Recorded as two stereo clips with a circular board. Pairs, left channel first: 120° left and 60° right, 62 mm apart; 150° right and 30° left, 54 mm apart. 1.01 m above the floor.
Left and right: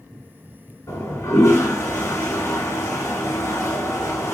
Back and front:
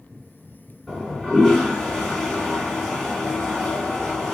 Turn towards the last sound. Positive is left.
turn(degrees=135)